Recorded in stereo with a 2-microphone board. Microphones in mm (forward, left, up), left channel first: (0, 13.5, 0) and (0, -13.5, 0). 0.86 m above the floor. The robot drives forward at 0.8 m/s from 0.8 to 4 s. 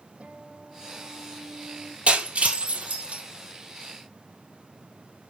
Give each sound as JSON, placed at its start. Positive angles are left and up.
{"t": 0.2, "sound": "a guitar", "side_deg": -55, "distance_m": 6.0}
{"t": 2.1, "sound": "breaking glass", "side_deg": -65, "distance_m": 5.5}